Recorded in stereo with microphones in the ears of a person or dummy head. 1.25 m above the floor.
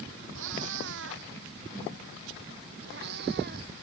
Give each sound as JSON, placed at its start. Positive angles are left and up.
{"t": 0.3, "sound": "a cat meowing", "side_deg": -70}